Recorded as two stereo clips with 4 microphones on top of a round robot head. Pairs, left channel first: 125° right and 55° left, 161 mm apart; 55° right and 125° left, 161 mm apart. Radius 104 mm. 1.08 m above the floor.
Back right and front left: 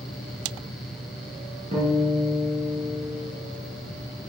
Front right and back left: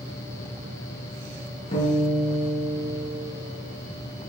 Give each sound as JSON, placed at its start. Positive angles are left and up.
{"t": 1.7, "sound": "a guitar", "azimuth_deg": 0, "distance_m": 6.0}